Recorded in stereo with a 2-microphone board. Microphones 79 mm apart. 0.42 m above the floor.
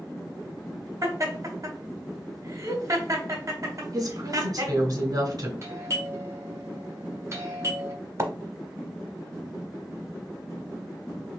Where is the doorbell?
40° right (ahead or behind), 1.5 m.